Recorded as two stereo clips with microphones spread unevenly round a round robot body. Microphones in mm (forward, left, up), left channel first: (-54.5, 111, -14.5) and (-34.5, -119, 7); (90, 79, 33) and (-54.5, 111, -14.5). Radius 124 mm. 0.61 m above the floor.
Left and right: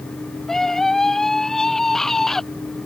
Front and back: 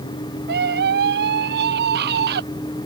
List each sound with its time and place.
0.5 s a scream: 175° right